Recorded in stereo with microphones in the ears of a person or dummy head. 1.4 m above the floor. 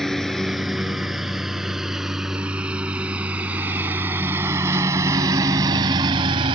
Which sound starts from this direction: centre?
A lawn mower, at 0.0 s.